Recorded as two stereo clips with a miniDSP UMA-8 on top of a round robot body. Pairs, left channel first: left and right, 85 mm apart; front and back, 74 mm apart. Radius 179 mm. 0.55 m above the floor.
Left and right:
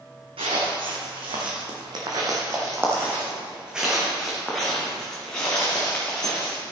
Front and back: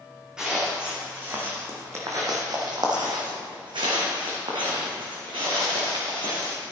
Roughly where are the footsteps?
Right.